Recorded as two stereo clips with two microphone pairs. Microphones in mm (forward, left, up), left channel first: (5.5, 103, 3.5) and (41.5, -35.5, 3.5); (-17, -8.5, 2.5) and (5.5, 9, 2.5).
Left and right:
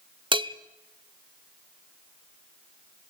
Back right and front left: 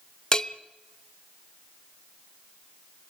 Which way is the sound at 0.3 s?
95° right.